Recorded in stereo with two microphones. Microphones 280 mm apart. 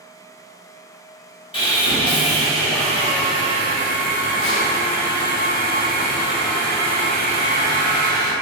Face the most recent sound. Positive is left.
turn(degrees=15)  # may be behind; listen again after turning